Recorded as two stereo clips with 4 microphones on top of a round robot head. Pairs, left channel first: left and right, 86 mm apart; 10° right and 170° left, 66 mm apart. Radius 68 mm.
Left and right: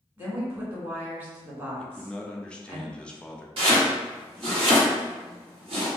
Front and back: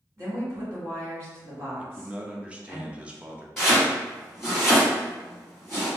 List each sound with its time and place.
0.2 s a woman speaking: 145° right, 1.7 m
1.8 s a man speaking: 145° left, 0.5 m
3.6 s chopping: 95° right, 1.8 m